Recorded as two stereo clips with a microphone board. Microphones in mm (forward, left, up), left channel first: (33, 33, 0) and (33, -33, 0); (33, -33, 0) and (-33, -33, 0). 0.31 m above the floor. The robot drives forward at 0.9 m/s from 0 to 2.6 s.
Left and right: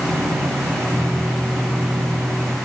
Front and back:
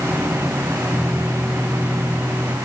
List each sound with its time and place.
Only background noise.